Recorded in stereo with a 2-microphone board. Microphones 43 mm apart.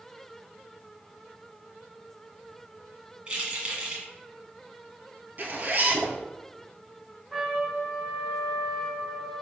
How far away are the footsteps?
I don't hear footsteps.